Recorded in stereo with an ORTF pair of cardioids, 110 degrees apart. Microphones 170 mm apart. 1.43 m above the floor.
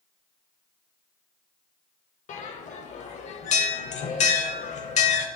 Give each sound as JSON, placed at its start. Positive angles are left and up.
{"t": 2.3, "sound": "a bell", "azimuth_deg": 45, "distance_m": 0.6}